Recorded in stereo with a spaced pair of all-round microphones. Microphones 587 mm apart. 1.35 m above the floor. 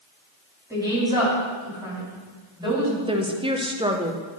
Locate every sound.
0.7 s a woman speaking: 5° right (ahead or behind), 4 m
3.1 s a woman speaking: 10° right (ahead or behind), 0.7 m